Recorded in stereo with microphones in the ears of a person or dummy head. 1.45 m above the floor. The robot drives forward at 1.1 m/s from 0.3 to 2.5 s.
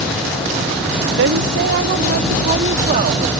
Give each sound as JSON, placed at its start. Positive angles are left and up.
{"t": 1.2, "sound": "a woman speaking", "side_deg": -70}